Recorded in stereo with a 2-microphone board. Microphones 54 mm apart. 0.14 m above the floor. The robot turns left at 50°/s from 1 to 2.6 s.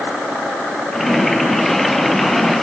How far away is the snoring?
I don't hear snoring.